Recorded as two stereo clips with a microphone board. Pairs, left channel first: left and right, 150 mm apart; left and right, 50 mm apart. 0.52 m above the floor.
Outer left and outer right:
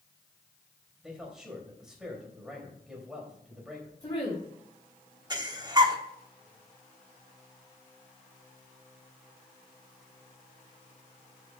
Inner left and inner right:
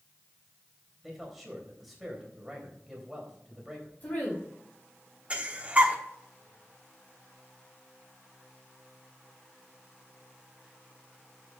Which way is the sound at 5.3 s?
30° right (ahead or behind).